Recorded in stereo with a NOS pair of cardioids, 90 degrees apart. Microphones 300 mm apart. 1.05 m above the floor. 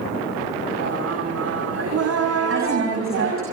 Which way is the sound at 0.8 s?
55° right.